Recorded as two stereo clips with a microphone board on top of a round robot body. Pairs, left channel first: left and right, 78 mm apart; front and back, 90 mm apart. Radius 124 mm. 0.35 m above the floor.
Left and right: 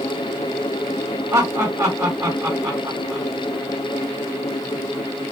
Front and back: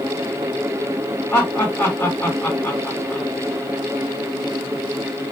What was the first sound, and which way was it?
Laughter, 55° right.